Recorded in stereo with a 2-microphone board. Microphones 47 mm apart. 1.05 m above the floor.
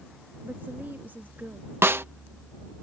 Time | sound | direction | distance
0.4 | a woman speaking | 45° right (ahead or behind) | ?
1.8 | a snare drum | 55° right (ahead or behind) | ?